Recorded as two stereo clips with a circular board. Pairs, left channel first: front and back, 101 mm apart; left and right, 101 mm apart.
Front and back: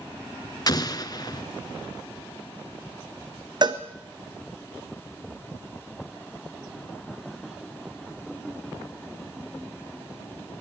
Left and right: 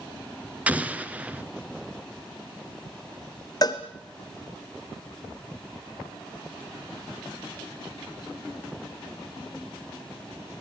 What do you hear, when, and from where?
0.7 s an explosion: 20° right, 1.3 m
3.6 s a cowbell: 140° left, 1.7 m